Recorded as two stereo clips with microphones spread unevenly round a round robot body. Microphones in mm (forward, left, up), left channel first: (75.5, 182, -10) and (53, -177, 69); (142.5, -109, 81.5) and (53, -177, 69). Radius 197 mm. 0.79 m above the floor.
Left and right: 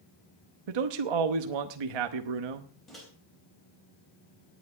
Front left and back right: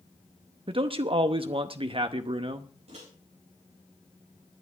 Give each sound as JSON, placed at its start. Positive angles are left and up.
{"t": 0.7, "sound": "a man speaking", "azimuth_deg": -110, "distance_m": 1.0}
{"t": 2.9, "sound": "a microwave", "azimuth_deg": 175, "distance_m": 3.5}